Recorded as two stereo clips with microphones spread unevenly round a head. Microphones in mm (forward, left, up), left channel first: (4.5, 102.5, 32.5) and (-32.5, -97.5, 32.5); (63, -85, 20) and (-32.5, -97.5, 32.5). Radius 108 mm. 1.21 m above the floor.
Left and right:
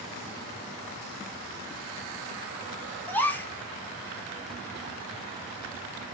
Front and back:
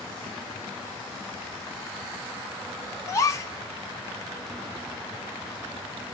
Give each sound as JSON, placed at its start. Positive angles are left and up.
{"t": 3.1, "sound": "a gasp", "azimuth_deg": 5, "distance_m": 0.5}